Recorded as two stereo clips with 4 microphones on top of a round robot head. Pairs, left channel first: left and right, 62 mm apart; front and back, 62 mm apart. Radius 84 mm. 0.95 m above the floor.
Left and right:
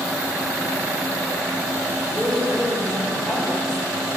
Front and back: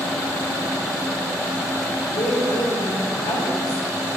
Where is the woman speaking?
5° left, 4 m; by 3.9 s 10° left, 3.5 m.